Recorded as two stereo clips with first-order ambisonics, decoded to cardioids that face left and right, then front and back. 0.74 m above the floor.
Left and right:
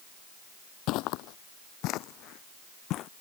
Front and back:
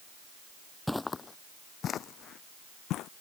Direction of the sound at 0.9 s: 90° left.